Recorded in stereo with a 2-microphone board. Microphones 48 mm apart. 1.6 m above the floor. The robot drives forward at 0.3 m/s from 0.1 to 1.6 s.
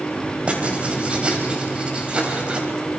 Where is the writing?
30° right (ahead or behind), 3 m; by 2.7 s 25° right (ahead or behind), 3.5 m.